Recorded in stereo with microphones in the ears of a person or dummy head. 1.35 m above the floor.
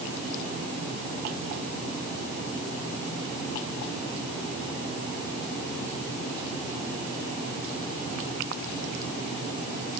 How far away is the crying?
No crying in this recording.